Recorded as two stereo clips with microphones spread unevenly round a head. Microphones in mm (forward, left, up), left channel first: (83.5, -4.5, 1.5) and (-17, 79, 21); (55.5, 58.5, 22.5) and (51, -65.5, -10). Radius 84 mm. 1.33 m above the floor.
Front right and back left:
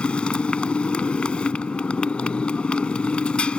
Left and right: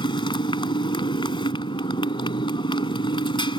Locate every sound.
0.0 s a motorcycle: 45° left